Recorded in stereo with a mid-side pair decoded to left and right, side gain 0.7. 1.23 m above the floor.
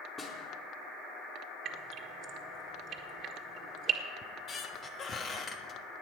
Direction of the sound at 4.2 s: 35° left.